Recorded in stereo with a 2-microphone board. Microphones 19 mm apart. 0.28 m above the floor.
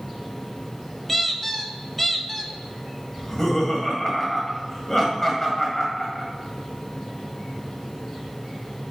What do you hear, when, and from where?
1.1 s a squeak: 10° left (ahead or behind), 0.5 m
3.2 s laughter: 25° left (ahead or behind), 1.8 m